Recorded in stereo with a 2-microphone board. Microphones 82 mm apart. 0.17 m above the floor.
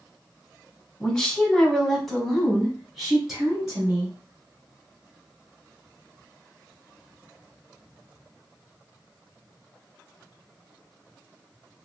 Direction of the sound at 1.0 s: 10° left (ahead or behind).